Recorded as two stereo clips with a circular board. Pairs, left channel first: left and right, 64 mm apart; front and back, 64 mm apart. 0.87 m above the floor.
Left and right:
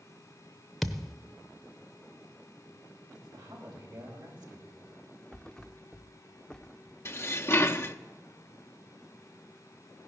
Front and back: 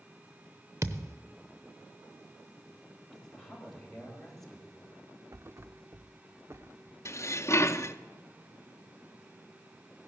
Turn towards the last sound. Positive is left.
turn(degrees=40)